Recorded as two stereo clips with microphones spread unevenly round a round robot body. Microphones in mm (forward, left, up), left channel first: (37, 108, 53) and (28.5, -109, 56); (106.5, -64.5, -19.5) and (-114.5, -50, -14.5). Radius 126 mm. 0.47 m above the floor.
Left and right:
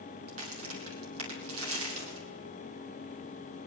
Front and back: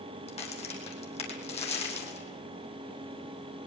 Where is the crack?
65° right, 3.5 m.